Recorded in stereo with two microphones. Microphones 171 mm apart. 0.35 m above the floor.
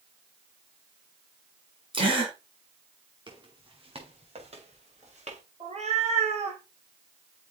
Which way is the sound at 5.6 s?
40° right (ahead or behind).